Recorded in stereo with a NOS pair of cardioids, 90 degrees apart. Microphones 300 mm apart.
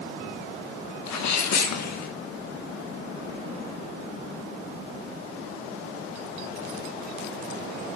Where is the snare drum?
No snare drum in this recording.